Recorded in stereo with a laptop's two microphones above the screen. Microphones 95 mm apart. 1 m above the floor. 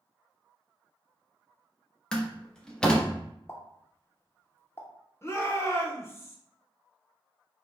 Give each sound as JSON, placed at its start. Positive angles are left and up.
{"t": 2.1, "sound": "a door slam", "side_deg": 10, "distance_m": 0.8}
{"t": 3.5, "sound": "a pop", "side_deg": 25, "distance_m": 0.6}
{"t": 5.2, "sound": "a shout", "side_deg": 30, "distance_m": 0.8}